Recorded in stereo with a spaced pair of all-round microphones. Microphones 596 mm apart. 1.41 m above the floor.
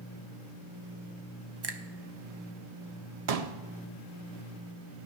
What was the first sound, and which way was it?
A finger snap, 45° right (ahead or behind).